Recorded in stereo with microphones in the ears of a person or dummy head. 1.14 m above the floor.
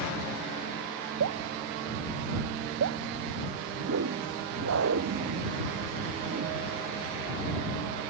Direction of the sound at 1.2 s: 80° right.